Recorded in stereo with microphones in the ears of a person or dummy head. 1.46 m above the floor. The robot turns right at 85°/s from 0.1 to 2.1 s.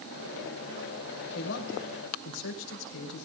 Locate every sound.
1.4 s a man speaking: 50° left, 5.5 m; by 3.2 s 115° left, 5.5 m